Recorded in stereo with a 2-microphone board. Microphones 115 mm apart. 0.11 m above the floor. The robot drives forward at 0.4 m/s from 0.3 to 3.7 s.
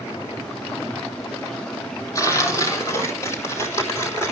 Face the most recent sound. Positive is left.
turn(degrees=25)  # may be behind; listen again after turning